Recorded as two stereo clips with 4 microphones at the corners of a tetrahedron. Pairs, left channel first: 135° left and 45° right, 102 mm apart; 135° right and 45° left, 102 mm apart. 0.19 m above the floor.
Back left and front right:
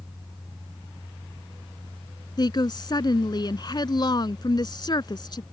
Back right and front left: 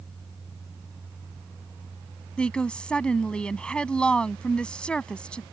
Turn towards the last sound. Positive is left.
turn(degrees=150)